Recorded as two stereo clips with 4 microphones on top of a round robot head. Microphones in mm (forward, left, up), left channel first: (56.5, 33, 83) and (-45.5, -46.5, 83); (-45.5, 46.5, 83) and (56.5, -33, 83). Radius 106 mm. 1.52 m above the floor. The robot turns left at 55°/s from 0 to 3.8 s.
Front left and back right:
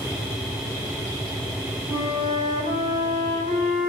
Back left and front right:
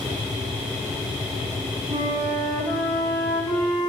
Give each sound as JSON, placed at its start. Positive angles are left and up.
{"t": 1.9, "sound": "a flute", "azimuth_deg": -90, "distance_m": 3.0}